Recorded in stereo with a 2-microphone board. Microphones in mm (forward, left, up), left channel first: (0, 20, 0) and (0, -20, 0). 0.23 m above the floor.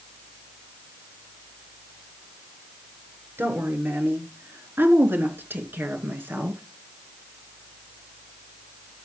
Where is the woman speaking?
65° right (ahead or behind), 3.5 m; by 6.6 s 60° right (ahead or behind), 3.5 m.